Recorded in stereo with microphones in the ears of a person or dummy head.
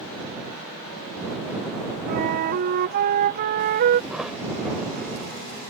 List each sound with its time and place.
2.1 s a flute: 45° right (ahead or behind)
4.1 s a thud: centre (ahead or behind)